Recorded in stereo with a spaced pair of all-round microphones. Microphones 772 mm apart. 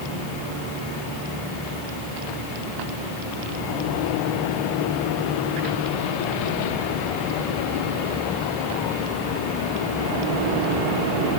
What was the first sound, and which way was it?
Only background noise.